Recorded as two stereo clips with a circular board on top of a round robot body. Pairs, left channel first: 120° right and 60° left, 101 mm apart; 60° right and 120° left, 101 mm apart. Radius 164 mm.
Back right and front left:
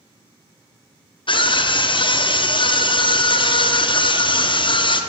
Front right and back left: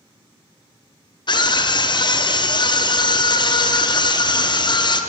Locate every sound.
1.3 s a scream: 95° right, 1.0 m